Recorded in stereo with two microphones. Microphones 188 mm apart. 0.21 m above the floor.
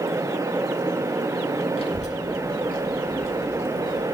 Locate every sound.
1.8 s a child speaking: 30° left (ahead or behind), 1.1 m; by 4.0 s 50° left (ahead or behind), 1.7 m